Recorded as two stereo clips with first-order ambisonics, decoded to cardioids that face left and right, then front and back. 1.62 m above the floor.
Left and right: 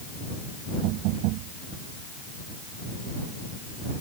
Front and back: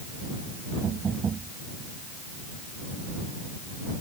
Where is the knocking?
110° right.